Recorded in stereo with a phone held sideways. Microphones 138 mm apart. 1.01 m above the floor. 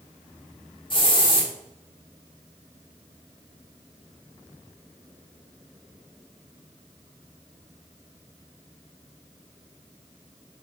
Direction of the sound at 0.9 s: 35° left (ahead or behind).